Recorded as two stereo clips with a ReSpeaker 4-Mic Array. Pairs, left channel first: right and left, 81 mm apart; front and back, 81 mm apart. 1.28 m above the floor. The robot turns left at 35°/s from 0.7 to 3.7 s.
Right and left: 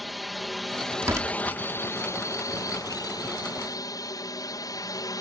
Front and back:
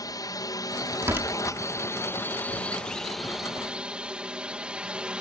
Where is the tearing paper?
135° left; by 1.6 s 115° left.